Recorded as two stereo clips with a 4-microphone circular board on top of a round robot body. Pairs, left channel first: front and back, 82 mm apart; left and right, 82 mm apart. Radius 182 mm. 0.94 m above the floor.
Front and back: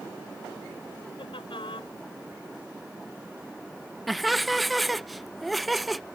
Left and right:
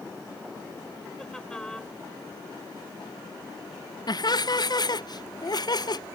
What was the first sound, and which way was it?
Laughter, 10° left.